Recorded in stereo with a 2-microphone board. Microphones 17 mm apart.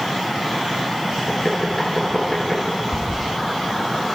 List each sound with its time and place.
1.3 s knocking: 30° left (ahead or behind), 6.5 m
2.9 s a toilet flushing: 30° right (ahead or behind), 1.9 m